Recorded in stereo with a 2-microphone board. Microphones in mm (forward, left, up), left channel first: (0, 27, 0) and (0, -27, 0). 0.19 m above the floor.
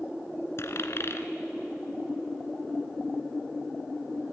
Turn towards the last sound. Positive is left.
turn(degrees=55)  # may be behind; listen again after turning